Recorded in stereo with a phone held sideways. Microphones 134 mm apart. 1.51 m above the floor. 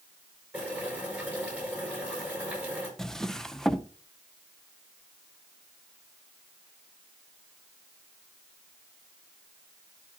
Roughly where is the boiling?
Centre.